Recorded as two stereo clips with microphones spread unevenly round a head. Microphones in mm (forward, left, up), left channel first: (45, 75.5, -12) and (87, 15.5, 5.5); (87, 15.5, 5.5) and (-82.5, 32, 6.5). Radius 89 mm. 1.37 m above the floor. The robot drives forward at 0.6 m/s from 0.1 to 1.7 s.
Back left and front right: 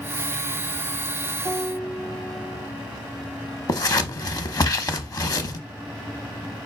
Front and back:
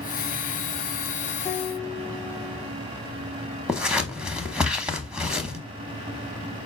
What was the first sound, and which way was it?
A piano, 45° left.